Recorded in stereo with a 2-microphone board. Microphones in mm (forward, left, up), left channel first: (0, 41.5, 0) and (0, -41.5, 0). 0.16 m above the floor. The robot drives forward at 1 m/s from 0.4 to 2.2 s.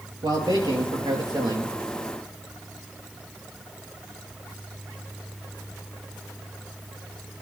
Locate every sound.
0.2 s a man speaking: 60° right (ahead or behind), 4 m; by 1.7 s 65° right (ahead or behind), 4 m